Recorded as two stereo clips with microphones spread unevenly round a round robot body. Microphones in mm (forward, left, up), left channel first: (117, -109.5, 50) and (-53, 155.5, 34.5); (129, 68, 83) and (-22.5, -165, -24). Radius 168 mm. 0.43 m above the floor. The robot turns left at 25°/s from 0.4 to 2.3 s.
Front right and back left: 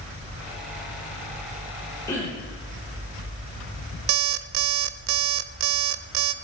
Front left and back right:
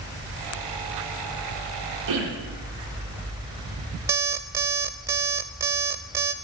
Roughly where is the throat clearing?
Behind right.